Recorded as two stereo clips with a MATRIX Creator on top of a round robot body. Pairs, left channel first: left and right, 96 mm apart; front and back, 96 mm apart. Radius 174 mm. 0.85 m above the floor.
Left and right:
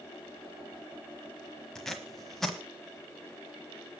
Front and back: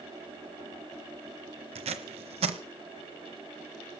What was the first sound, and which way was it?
Tape being pulled, straight behind.